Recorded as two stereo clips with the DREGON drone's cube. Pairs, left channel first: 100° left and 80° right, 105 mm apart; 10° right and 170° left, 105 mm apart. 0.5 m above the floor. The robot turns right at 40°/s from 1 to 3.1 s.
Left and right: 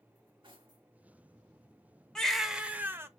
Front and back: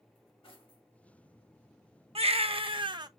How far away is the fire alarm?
No fire alarm in this recording.